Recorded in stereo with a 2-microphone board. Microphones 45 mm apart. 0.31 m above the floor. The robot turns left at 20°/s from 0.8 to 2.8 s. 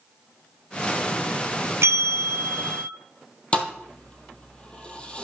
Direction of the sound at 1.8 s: 75° right (ahead or behind).